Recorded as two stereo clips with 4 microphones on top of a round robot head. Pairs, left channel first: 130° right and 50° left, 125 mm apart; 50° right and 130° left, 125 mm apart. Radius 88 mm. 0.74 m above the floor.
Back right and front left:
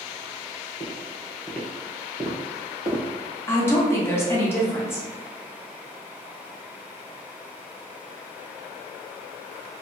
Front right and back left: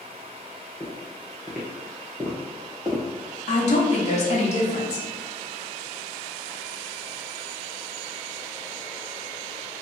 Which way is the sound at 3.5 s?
60° right.